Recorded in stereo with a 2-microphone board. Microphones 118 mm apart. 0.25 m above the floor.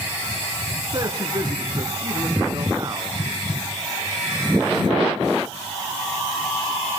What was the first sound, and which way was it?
A man speaking, 35° right (ahead or behind).